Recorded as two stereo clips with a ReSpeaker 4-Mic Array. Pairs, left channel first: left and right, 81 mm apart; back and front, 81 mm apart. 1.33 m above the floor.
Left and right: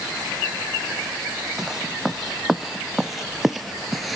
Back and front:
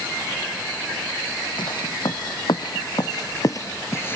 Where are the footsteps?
175° right; by 4.2 s straight behind.